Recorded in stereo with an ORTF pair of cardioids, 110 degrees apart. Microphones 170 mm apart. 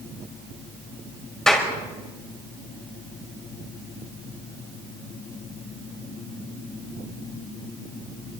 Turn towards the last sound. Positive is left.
turn(degrees=5)